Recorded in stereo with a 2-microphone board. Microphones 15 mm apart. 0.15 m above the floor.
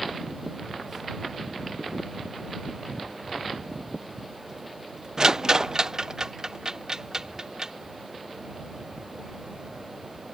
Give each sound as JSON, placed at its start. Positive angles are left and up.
{"t": 5.2, "sound": "a rattle", "side_deg": -40}